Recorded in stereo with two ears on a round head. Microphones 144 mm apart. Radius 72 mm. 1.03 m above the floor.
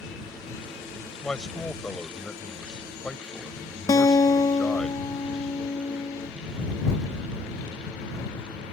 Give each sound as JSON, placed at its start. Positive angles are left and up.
{"t": 1.2, "sound": "a man speaking", "side_deg": 5}
{"t": 3.9, "sound": "a guitar", "side_deg": 20}